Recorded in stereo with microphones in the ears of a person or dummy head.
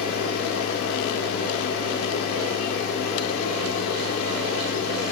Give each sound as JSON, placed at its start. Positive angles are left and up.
{"t": 0.0, "sound": "a machine running", "side_deg": 50, "distance_m": 1.1}